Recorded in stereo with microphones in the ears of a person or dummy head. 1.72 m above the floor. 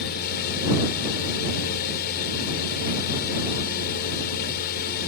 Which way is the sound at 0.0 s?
55° left (ahead or behind).